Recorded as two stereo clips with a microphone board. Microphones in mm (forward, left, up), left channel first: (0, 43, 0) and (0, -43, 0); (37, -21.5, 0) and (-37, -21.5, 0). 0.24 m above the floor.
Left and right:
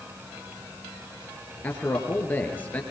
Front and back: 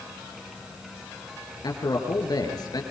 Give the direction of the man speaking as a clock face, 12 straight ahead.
11 o'clock.